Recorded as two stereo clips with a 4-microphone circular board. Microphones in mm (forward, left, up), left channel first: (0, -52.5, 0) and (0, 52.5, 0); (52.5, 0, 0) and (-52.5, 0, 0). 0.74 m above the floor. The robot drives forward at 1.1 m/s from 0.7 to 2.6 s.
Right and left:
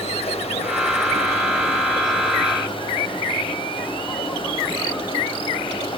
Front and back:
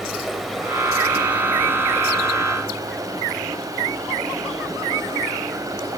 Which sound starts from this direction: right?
Running water, at 0.0 s.